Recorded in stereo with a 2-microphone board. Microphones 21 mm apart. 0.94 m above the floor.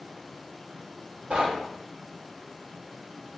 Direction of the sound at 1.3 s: 70° right (ahead or behind).